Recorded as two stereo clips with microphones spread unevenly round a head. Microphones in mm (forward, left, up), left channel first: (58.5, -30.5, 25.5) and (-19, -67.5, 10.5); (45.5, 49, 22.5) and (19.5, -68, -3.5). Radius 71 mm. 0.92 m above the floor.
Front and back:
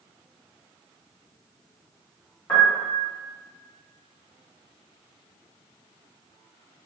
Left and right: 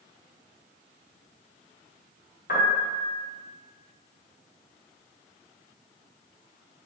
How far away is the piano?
About 0.6 m.